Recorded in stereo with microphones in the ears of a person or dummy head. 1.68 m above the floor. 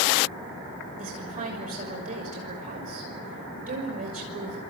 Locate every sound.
1.0 s a woman speaking: 40° right (ahead or behind), 6 m